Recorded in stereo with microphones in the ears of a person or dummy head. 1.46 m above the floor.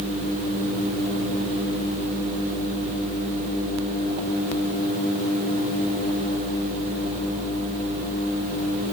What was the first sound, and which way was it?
Only background noise.